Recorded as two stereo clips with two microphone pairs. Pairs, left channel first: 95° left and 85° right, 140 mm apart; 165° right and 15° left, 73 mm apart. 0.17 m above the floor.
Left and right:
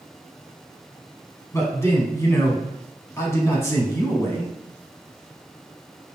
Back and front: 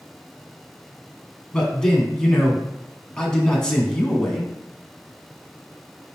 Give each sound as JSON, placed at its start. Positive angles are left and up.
{"t": 1.5, "sound": "a man speaking", "azimuth_deg": 130, "distance_m": 1.2}